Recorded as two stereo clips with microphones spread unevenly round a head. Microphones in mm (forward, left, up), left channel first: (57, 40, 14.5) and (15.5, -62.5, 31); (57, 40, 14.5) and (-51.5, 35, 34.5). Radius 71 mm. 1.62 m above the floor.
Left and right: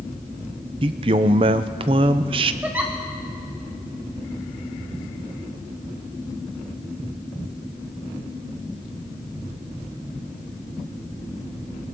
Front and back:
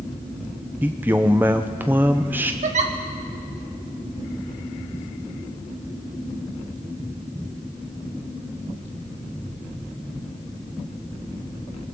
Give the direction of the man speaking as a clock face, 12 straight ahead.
4 o'clock.